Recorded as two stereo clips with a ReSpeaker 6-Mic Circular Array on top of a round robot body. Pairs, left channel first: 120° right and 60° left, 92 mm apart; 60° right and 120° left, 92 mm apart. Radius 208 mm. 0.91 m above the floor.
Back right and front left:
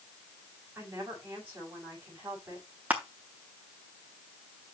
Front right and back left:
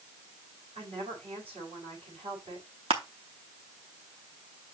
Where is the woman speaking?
120° left, 6 m.